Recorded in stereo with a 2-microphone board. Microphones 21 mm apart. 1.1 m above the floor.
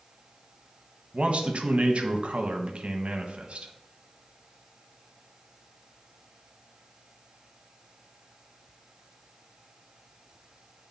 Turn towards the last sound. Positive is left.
turn(degrees=-70)  # may be behind; listen again after turning